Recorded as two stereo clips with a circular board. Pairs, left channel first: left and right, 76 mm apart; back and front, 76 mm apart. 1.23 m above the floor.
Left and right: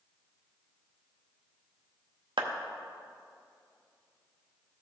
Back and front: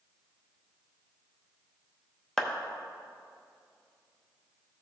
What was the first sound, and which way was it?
A clap, 95° right.